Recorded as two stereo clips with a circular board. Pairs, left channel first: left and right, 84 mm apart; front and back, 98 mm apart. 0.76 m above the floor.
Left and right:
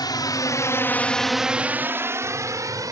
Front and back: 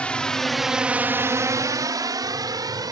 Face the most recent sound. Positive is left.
turn(degrees=-135)